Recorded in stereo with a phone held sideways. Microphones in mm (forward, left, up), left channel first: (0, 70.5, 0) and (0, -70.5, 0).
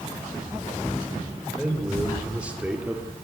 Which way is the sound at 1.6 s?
5° right (ahead or behind).